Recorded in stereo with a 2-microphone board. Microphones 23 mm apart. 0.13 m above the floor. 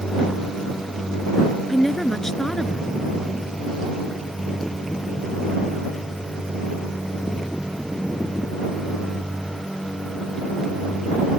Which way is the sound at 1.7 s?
15° left (ahead or behind).